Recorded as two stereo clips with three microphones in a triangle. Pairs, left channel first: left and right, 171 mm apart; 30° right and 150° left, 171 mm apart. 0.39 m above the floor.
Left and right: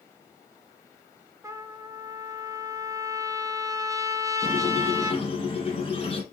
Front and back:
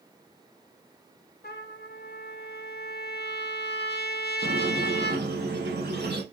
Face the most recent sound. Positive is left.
turn(degrees=145)